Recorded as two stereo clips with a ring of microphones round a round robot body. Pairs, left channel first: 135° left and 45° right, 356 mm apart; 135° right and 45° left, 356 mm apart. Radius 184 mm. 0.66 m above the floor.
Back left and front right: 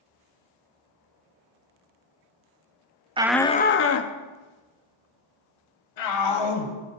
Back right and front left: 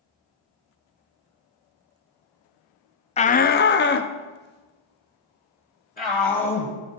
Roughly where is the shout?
Right.